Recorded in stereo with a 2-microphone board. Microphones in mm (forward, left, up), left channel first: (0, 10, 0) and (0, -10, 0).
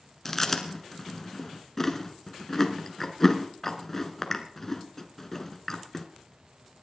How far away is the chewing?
About 1.2 m.